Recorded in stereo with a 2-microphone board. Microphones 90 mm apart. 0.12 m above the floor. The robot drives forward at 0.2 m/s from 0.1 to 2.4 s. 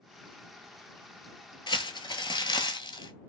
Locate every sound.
1.7 s crumpling: 65° left (ahead or behind), 0.6 m; by 3.1 s 60° left (ahead or behind), 0.6 m